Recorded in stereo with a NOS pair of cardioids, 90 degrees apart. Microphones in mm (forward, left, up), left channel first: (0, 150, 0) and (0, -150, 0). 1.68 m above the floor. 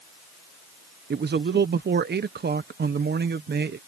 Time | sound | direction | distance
1.1 | a man speaking | 35° right | ?